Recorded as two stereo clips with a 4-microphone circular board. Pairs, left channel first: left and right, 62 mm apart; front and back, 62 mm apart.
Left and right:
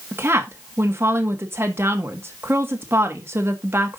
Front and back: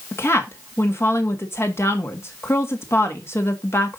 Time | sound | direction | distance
0.1 | a woman speaking | 45° right | 1.6 m